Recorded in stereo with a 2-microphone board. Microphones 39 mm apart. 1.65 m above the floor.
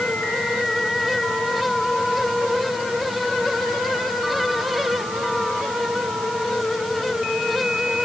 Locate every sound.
Only background noise.